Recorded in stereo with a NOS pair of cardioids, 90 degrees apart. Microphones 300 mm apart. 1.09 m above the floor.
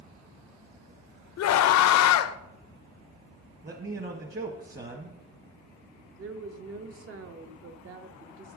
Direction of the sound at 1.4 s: 65° left.